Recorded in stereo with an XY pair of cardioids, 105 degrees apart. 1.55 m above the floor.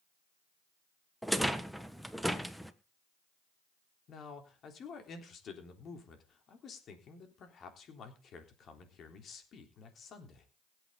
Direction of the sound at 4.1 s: 55° left.